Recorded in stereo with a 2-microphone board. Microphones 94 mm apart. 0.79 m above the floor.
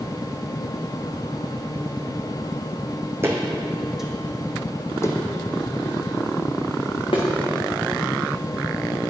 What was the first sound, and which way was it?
Footsteps, 25° right (ahead or behind).